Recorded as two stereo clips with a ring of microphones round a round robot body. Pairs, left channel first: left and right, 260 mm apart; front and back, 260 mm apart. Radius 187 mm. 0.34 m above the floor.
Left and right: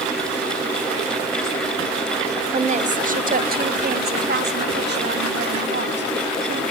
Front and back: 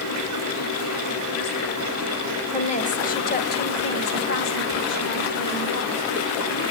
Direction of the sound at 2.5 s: 45° right.